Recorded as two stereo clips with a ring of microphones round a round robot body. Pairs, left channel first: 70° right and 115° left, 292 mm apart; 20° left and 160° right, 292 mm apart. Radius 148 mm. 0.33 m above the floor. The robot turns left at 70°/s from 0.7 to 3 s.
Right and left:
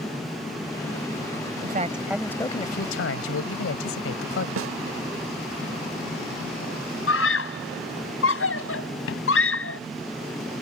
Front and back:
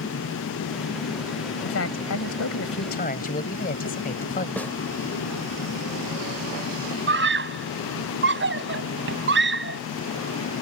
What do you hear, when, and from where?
1.6 s a man speaking: 65° left; by 4.5 s 35° right
4.6 s a snare drum: 105° left
7.1 s a scream: 110° right